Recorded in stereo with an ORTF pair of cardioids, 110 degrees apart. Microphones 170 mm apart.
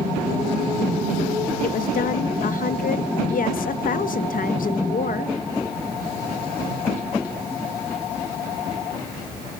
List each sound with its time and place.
1.6 s a woman speaking: 60° left, 0.8 m